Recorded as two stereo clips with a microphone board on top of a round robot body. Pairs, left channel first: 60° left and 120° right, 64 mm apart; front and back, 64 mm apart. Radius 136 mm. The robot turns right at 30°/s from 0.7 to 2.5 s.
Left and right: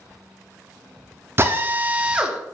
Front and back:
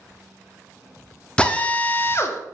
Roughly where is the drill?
Right.